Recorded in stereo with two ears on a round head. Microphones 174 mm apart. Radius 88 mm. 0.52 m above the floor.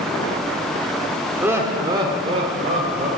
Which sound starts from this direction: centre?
Laughter, at 1.4 s.